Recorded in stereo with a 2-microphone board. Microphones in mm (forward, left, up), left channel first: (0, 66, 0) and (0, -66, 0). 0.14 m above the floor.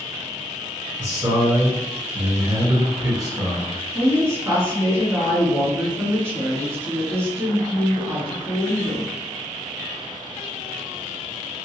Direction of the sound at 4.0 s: 20° right (ahead or behind).